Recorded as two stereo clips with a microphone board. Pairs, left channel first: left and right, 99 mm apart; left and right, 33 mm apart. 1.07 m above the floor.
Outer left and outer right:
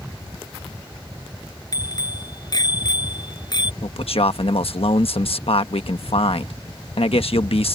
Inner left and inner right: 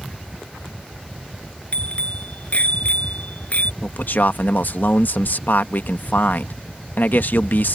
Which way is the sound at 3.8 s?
70° left (ahead or behind).